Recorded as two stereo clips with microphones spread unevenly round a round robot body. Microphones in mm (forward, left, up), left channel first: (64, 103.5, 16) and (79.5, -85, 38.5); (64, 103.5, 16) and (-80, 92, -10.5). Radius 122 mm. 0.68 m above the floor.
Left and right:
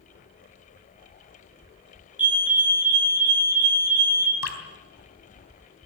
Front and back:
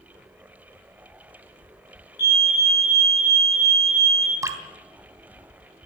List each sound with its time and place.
2.2 s a fire alarm: straight ahead, 5 m
4.4 s dripping: 115° left, 3 m